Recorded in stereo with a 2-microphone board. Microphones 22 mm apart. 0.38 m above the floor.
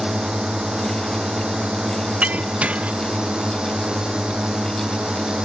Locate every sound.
0.0 s a drone: 45° right (ahead or behind)
2.2 s breaking glass: 85° right